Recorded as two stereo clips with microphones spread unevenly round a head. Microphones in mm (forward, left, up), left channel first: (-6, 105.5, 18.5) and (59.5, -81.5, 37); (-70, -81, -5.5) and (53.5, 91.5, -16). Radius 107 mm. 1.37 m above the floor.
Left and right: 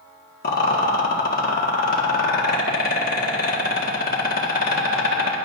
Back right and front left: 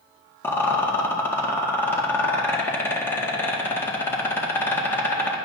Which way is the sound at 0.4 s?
155° left.